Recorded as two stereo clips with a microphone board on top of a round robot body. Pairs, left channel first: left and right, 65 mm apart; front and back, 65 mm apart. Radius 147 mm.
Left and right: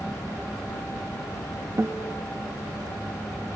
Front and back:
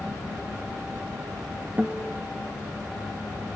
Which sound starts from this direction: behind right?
A guitar, at 1.8 s.